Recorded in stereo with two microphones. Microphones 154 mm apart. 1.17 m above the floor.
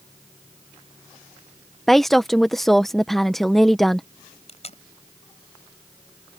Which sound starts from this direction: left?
Tape being pulled, at 4.5 s.